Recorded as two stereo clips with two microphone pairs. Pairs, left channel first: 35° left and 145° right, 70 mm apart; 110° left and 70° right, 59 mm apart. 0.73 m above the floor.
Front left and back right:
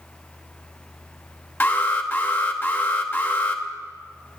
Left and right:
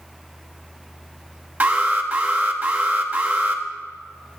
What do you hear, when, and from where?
1.6 s an alarm: 15° right, 0.9 m